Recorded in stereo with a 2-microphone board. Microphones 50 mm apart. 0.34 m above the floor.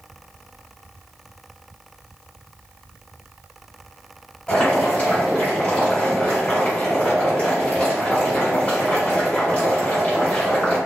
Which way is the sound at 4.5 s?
30° left (ahead or behind).